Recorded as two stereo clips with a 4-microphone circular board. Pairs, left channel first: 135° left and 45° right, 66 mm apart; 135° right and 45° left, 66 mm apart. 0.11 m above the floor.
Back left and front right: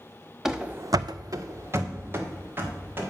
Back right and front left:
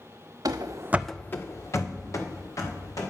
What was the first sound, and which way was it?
Running footsteps, 40° left.